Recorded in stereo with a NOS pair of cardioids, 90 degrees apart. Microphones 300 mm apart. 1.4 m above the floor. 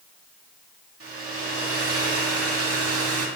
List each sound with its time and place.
1.0 s a hair dryer: 50° right, 2 m